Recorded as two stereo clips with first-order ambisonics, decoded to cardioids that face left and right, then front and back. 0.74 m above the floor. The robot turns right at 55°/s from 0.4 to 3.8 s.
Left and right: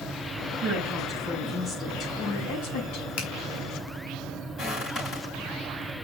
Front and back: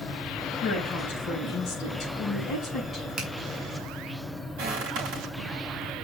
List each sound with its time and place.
0.6 s a woman speaking: 35° right, 4.5 m; by 3.1 s 100° left, 4.5 m
3.2 s a finger snap: 115° left, 3 m; by 3.3 s 120° left, 3 m
4.6 s footsteps: 160° left, 5.5 m